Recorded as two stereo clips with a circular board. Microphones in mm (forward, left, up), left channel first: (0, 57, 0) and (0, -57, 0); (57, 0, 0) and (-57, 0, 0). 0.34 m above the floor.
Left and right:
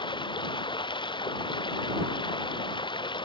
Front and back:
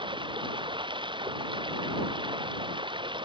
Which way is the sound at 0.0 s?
135° left.